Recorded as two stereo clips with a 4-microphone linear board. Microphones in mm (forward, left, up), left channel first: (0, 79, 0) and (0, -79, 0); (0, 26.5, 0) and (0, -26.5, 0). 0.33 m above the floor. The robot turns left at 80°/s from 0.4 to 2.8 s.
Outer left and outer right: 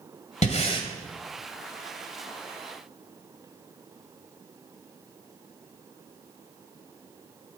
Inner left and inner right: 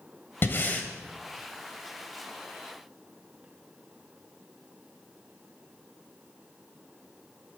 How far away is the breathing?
About 1.4 m.